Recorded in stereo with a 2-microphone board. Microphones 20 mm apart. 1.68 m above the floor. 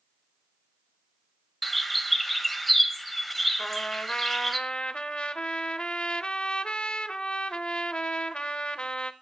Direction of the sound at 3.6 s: 55° left (ahead or behind).